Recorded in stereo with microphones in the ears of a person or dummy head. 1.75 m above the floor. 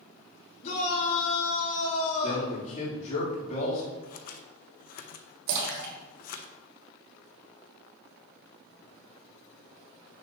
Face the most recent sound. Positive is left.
turn(degrees=-55)  # may be behind; listen again after turning